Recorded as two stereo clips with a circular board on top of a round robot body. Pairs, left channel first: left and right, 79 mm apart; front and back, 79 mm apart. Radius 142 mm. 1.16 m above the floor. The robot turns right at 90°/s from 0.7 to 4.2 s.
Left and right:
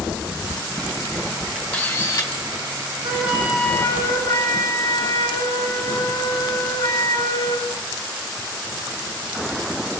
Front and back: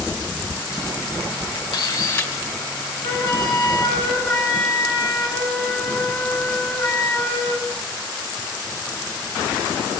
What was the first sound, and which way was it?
A camera shutter, 10° left.